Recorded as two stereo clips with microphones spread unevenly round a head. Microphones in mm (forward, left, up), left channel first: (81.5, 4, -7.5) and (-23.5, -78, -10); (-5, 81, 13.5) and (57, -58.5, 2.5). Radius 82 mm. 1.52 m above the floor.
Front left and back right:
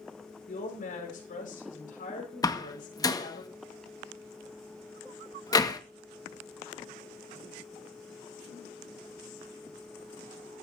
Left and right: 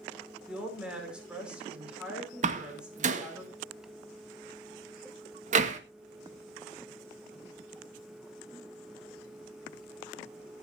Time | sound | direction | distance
0.5 | a woman speaking | 20° left | 5.5 m
2.4 | a door slam | 25° right | 1.7 m